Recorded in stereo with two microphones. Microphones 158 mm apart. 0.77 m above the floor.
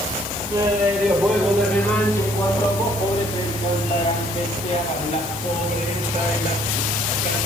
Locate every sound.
0.5 s laughter: 20° right (ahead or behind), 2.5 m; by 7.4 s 55° left (ahead or behind), 7 m